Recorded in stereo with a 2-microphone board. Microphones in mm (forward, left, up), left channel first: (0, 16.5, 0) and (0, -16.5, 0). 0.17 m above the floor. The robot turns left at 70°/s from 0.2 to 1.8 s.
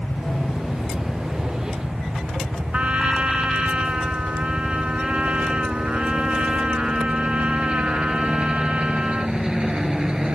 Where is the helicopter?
50° left (ahead or behind); by 10.3 s 25° right (ahead or behind).